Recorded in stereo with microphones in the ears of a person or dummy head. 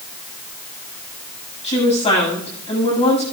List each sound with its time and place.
1.6 s a woman speaking: 30° left (ahead or behind), 6.5 m